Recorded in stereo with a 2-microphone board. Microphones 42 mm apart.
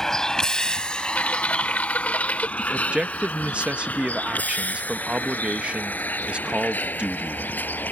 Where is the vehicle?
15° left (ahead or behind); by 7.9 s 50° left (ahead or behind).